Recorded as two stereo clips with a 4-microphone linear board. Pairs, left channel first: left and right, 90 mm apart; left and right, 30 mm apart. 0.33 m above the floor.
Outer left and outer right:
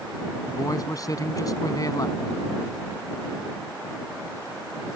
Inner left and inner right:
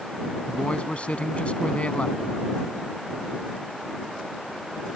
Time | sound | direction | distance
0.5 | a man speaking | 45° left (ahead or behind) | ?